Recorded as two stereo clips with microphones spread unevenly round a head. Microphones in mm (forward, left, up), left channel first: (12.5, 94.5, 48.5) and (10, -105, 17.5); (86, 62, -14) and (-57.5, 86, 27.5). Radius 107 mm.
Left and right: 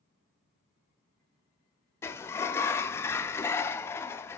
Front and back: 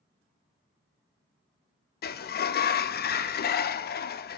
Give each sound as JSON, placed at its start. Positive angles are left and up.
{"t": 2.0, "sound": "a sliding door", "azimuth_deg": 10, "distance_m": 0.5}